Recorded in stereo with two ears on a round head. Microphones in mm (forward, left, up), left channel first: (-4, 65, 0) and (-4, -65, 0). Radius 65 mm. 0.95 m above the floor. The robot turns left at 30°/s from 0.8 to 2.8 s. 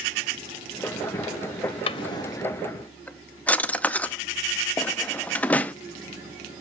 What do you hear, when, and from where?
1.9 s a drawer: 35° left (ahead or behind), 0.5 m; by 5.7 s 10° left (ahead or behind), 0.5 m